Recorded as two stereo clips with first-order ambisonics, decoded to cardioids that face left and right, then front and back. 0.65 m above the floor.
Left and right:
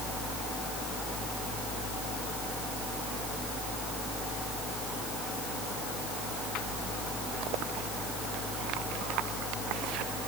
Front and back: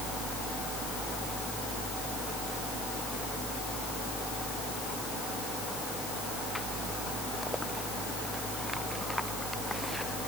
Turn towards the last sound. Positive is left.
No sound to turn to.